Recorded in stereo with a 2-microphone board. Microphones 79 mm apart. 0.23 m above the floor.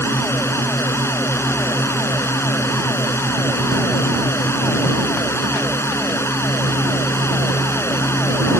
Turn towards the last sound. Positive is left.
turn(degrees=30)  # may be behind; listen again after turning